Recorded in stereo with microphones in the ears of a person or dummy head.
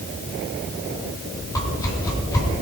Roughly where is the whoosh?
Centre.